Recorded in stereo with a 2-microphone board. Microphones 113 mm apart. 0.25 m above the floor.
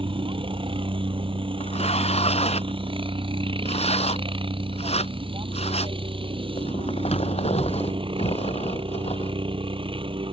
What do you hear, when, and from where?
0.0 s a helicopter: 55° right (ahead or behind)
1.6 s tearing paper: 75° left (ahead or behind)